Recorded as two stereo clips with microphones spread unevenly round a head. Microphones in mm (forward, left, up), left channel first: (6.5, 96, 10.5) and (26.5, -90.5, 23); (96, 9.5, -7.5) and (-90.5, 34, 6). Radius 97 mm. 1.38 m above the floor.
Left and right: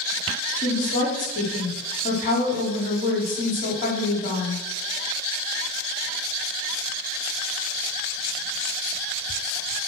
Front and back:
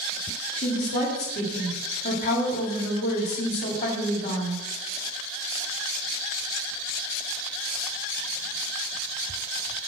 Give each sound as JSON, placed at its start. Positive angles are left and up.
{"t": 0.6, "sound": "a woman speaking", "azimuth_deg": 45, "distance_m": 3.5}